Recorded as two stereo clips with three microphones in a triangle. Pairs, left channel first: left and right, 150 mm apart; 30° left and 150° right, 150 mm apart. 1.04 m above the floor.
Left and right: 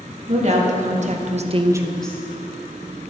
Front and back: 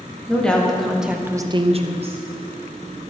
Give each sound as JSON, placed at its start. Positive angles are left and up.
{"t": 0.3, "sound": "a woman speaking", "azimuth_deg": -50, "distance_m": 1.8}